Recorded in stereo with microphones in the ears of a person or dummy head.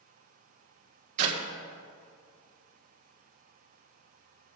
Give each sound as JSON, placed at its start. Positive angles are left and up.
{"t": 1.2, "sound": "a clap", "side_deg": -40, "distance_m": 1.8}